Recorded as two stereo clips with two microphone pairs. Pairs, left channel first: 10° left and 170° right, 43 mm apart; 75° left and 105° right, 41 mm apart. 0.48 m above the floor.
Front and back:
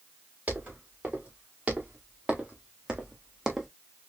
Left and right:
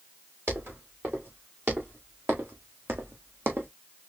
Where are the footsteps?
120° right, 3 m; by 3.7 s 85° right, 1.1 m.